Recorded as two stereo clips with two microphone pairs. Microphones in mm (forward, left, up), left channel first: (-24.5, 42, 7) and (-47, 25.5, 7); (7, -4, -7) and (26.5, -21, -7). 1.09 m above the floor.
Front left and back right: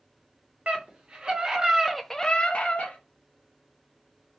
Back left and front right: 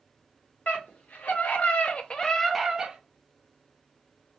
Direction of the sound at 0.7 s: 160° left.